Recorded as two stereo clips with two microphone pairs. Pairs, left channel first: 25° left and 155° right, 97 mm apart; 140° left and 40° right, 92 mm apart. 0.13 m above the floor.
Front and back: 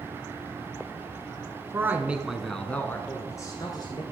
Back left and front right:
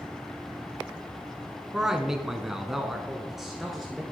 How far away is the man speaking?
About 1.3 m.